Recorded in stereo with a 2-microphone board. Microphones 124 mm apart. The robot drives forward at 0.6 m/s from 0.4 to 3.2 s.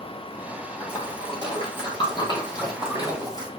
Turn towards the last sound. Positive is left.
turn(degrees=35)  # may be behind; listen again after turning